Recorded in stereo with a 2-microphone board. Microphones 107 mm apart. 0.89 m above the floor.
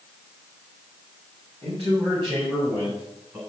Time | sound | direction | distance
1.6 | a man speaking | 50° right (ahead or behind) | 5 m